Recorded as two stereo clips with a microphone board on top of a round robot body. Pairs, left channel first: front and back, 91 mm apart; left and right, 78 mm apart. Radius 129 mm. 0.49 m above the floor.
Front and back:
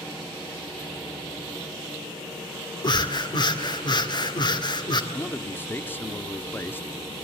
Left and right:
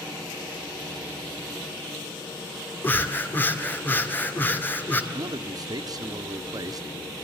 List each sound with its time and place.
2.8 s breathing: 25° left, 2 m
5.1 s a man speaking: 65° right, 1.1 m